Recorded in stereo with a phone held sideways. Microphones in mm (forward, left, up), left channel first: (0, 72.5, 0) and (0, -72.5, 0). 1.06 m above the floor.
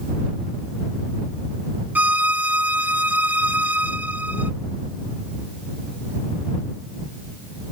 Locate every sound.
1.9 s a violin: 10° right (ahead or behind)